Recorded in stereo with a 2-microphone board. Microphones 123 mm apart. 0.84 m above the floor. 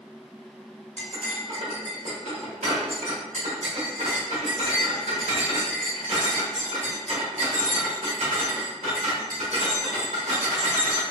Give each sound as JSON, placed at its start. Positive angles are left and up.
{"t": 1.0, "sound": "cutlery clinking", "side_deg": -85, "distance_m": 1.4}